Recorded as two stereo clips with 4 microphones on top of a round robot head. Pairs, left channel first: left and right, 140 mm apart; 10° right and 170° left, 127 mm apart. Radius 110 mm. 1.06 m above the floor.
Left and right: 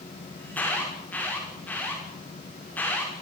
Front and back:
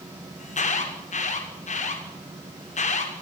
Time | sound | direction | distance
0.4 | an alarm | 10° left | 5.5 m